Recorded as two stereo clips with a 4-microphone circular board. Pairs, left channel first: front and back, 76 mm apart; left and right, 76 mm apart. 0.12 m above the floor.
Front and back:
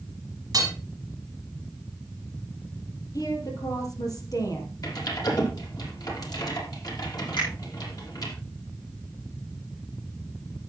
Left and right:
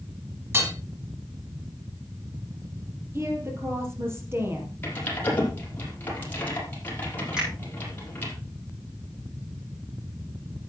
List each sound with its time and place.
0.5 s hammering: 145° right, 4.5 m
3.1 s a woman speaking: 35° right, 4 m
4.8 s typing on a keyboard: 30° left, 5 m
7.4 s a finger snap: 10° right, 8 m